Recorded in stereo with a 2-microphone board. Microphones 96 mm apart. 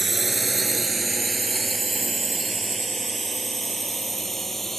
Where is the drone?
Centre (ahead or behind); by 4.8 s 5° left (ahead or behind).